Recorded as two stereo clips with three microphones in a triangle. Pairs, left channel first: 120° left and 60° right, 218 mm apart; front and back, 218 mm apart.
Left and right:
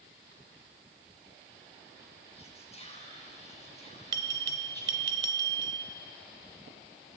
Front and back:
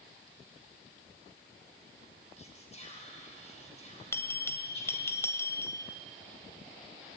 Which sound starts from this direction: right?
A bell, at 4.1 s.